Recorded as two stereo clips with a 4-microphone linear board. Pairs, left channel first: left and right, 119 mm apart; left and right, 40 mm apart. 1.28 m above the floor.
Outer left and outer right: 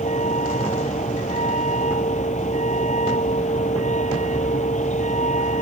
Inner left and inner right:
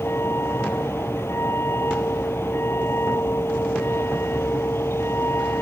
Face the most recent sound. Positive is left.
turn(degrees=85)